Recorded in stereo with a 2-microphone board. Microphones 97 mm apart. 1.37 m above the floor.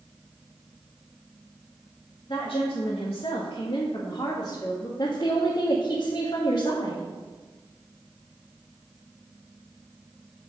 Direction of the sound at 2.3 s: 60° left (ahead or behind).